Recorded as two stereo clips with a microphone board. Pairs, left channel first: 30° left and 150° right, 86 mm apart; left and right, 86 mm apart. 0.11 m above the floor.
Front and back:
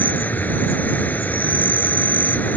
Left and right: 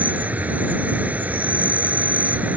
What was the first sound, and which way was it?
An insect, 30° right.